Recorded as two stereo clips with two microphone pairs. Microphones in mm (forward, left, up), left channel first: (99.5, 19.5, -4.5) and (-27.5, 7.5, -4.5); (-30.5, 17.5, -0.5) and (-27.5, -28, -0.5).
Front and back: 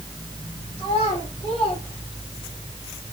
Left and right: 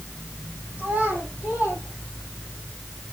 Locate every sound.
0.8 s a child speaking: 30° right, 4.5 m; by 2.6 s 40° right, 5.5 m